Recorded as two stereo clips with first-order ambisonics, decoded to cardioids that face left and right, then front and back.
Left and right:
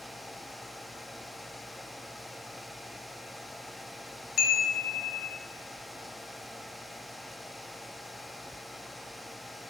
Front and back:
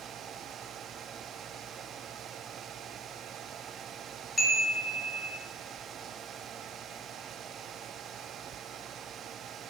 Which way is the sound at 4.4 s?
80° left.